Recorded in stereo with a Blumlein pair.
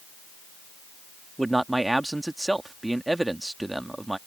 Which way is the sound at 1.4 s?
5° right.